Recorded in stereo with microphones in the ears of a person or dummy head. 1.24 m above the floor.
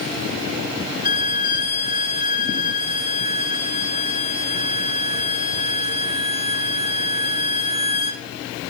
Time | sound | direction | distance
1.0 | a violin | 25° right (ahead or behind) | 2.0 m